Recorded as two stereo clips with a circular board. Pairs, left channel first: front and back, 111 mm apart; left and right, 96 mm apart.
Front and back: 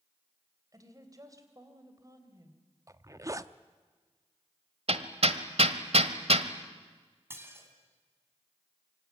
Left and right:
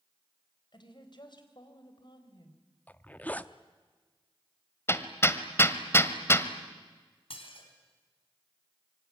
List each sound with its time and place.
0.7 s a woman speaking: 125° left, 3 m
2.9 s a zipper: 150° left, 0.7 m
4.9 s hammering: 155° left, 1.2 m
7.3 s dishes clattering: 110° left, 3.5 m